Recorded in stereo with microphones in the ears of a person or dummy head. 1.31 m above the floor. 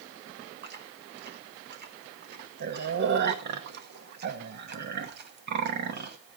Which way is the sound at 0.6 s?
50° right (ahead or behind).